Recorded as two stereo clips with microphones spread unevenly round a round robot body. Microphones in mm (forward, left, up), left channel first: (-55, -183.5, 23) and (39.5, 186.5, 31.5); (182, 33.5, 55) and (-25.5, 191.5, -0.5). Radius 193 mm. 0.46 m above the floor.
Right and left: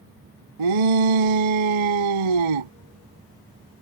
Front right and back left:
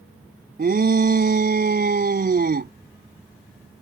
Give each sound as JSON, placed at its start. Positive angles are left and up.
{"t": 0.6, "sound": "a shout", "azimuth_deg": 85}